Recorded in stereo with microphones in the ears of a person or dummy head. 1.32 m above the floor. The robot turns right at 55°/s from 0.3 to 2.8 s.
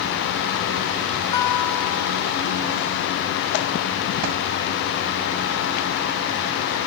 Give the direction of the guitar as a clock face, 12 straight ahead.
7 o'clock.